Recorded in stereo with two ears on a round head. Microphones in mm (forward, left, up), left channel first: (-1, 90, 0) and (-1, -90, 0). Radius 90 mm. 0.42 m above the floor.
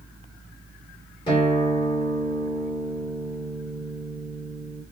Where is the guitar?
25° left (ahead or behind), 1.6 m.